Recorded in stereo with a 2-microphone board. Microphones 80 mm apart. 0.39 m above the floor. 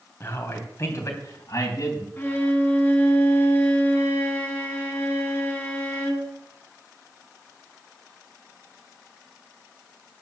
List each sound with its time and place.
0.2 s a man speaking: 30° left (ahead or behind), 3 m; by 2.1 s 45° left (ahead or behind), 3.5 m
2.2 s a violin: 25° left (ahead or behind), 3 m